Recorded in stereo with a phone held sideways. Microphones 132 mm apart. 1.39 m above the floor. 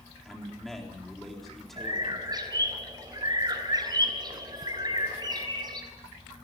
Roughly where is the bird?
Right.